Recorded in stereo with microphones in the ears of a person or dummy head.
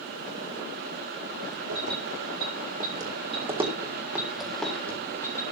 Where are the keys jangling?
75° right (ahead or behind), 3.5 m; by 5.4 s 10° left (ahead or behind), 4 m.